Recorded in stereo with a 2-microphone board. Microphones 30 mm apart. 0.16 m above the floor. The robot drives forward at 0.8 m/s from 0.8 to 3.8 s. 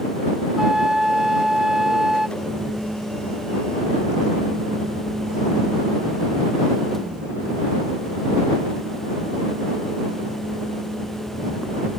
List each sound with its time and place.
0.6 s a flute: 20° right (ahead or behind); by 2.3 s 15° right (ahead or behind)
2.4 s a camera shutter: 25° right (ahead or behind); by 12.0 s 20° right (ahead or behind)